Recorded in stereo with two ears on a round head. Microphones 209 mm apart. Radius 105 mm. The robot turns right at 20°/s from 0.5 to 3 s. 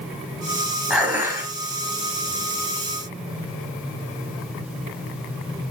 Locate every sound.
0.9 s dishes clattering: 5° right (ahead or behind), 3 m; by 1.5 s 15° right (ahead or behind), 3 m